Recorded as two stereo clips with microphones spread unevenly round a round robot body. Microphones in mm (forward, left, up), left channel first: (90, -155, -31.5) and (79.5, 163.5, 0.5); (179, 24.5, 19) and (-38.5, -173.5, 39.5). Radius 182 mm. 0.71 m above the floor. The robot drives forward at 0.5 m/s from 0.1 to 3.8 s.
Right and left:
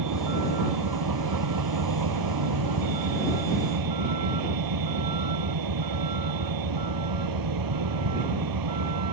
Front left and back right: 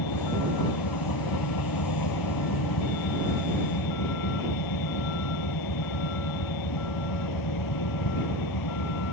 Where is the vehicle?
70° left; by 9.1 s 80° left.